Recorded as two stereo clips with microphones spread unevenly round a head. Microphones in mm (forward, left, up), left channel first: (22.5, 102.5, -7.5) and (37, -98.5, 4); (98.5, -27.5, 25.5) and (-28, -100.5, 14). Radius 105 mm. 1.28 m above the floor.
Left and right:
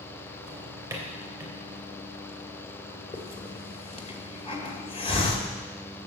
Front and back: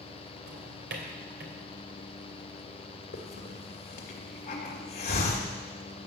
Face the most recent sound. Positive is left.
turn(degrees=30)